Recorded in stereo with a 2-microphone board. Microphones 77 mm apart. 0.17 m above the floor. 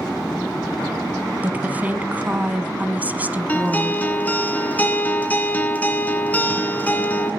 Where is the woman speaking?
20° right (ahead or behind), 1.1 m.